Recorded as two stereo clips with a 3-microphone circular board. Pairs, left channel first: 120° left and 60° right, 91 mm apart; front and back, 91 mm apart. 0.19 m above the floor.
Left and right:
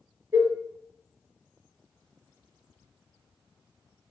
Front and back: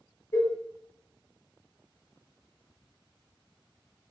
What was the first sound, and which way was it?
A cowbell, 25° right.